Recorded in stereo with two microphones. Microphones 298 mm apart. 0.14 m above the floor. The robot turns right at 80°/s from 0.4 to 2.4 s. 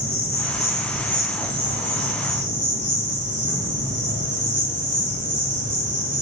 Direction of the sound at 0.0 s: 115° left.